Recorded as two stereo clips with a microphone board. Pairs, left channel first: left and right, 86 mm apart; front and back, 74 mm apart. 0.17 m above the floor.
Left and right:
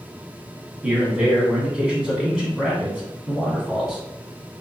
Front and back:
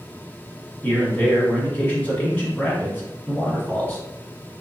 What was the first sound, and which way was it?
A man speaking, 20° right.